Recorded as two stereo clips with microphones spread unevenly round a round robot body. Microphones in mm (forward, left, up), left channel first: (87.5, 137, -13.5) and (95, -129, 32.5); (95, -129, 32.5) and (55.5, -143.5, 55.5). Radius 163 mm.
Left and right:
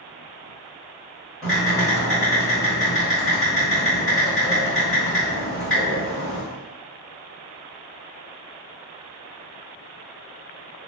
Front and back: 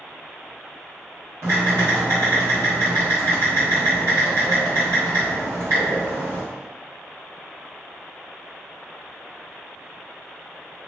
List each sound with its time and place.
1.4 s typing on a keyboard: 170° left, 1.2 m